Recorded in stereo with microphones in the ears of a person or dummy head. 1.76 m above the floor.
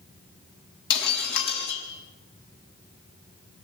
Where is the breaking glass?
60° left (ahead or behind), 6 m.